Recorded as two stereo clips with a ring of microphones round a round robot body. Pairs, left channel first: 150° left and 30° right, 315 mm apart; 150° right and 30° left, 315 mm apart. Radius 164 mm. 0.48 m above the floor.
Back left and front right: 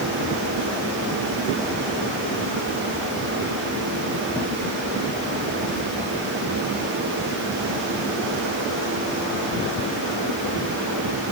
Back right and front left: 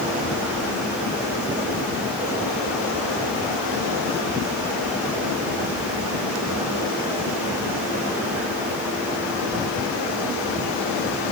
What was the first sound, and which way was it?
Only background noise.